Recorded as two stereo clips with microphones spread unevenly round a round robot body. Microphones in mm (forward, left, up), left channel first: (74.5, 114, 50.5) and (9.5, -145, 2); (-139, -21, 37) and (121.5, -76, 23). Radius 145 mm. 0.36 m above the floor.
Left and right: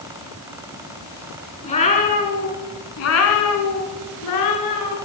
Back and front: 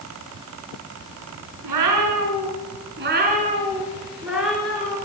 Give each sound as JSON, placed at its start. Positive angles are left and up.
{"t": 1.6, "sound": "a cat meowing", "azimuth_deg": 5, "distance_m": 3.0}